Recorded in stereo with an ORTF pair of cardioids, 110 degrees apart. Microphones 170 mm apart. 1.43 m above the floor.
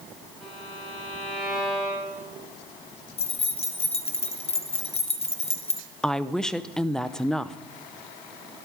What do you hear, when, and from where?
0.4 s a violin: straight ahead, 10 m
3.2 s keys jangling: 35° left, 1.1 m
6.0 s a woman speaking: 5° left, 0.7 m